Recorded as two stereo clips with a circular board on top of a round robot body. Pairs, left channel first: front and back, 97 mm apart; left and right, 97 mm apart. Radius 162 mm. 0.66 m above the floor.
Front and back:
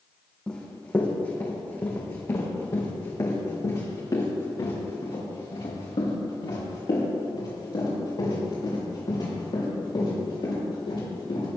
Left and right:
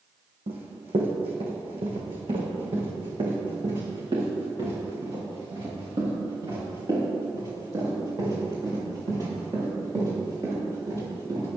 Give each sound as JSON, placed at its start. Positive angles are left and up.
{"t": 0.5, "sound": "running footsteps", "azimuth_deg": -80, "distance_m": 2.5}